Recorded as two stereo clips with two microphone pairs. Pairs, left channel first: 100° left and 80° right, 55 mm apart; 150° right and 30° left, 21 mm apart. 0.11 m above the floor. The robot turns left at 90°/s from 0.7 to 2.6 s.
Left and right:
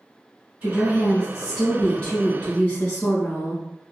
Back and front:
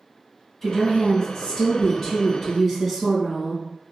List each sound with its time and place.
0.6 s a woman speaking: 90° right, 1.4 m; by 3.6 s 100° left, 1.4 m